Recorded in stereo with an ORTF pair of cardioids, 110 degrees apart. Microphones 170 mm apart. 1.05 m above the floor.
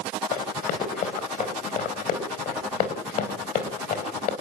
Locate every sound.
0.3 s running footsteps: 65° left, 5 m